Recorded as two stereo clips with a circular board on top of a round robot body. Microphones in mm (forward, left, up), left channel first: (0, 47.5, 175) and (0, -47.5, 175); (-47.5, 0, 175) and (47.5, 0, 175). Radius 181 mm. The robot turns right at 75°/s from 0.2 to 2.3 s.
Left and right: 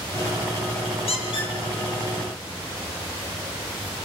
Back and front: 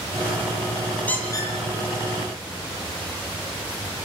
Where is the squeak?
105° left, 9 m; by 4.1 s 165° right, 9 m.